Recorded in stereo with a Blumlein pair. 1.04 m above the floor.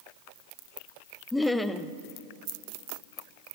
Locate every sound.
1.3 s laughter: 5° left, 0.7 m